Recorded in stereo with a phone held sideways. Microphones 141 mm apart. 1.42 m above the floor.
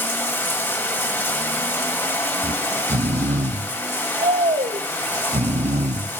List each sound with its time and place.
0.0 s running water: 15° left (ahead or behind), 1.9 m
2.4 s snoring: 55° right (ahead or behind), 0.6 m